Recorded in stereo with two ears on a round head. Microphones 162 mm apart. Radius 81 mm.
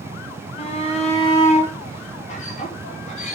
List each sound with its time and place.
0.6 s a shout: 30° left (ahead or behind), 2 m; by 3.4 s 40° left (ahead or behind), 4 m